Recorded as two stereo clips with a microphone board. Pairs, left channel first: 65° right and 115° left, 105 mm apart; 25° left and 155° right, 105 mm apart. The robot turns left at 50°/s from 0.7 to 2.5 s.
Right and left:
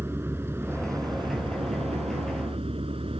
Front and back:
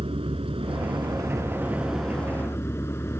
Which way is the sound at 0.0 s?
Straight behind.